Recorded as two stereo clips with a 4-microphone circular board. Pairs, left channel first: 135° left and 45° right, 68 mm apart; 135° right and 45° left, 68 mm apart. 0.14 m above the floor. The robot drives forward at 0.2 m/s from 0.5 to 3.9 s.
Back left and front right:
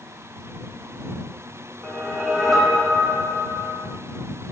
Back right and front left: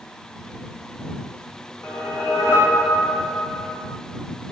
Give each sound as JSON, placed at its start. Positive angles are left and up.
{"t": 1.8, "sound": "a whoosh", "azimuth_deg": -140, "distance_m": 1.5}